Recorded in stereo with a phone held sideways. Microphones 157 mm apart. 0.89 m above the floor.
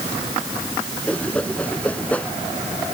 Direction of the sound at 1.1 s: 10° left (ahead or behind).